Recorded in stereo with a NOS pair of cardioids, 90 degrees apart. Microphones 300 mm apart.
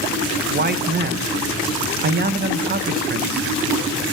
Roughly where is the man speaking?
Ahead right.